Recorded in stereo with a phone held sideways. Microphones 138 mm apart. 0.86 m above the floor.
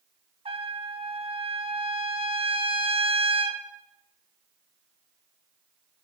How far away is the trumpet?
About 0.6 m.